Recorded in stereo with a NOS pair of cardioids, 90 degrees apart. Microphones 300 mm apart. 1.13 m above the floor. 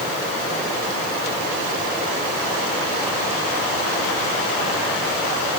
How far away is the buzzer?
No buzzer in this recording.